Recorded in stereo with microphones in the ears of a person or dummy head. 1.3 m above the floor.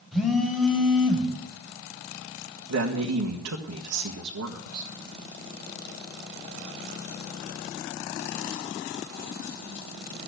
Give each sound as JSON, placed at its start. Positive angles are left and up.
{"t": 0.1, "sound": "a phone buzzing", "side_deg": 0, "distance_m": 3.5}
{"t": 2.7, "sound": "a man speaking", "side_deg": -80, "distance_m": 1.7}